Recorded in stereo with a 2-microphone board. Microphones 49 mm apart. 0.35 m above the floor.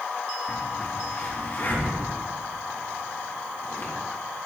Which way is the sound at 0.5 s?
40° left (ahead or behind).